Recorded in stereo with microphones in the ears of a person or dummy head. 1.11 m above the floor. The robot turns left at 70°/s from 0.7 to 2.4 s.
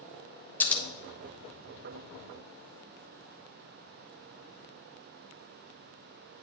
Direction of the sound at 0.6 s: 10° left (ahead or behind).